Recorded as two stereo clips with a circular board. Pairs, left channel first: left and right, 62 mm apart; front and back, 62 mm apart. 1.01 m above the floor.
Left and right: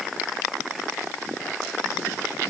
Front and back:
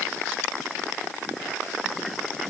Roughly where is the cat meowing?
I don't hear a cat meowing.